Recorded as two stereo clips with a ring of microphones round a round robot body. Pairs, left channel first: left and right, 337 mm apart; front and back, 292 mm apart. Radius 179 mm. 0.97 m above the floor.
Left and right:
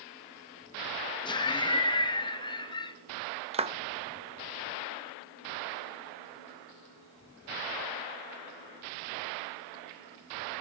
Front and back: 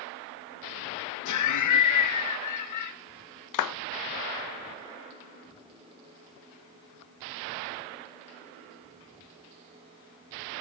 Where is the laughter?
15° left, 1.3 m.